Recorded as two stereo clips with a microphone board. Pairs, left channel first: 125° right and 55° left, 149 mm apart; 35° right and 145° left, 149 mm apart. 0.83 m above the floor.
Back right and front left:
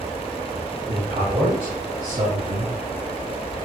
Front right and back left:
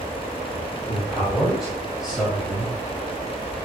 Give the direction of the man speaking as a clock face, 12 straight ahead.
10 o'clock.